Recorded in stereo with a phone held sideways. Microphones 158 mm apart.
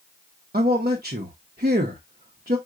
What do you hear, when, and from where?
0.5 s a man speaking: 65° right (ahead or behind), 0.9 m